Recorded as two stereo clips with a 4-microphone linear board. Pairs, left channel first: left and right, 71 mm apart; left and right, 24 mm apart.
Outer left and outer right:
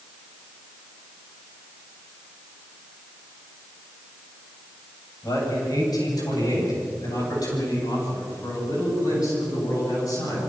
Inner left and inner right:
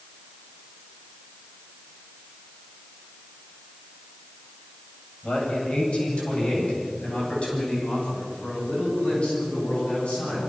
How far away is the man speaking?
About 8.5 m.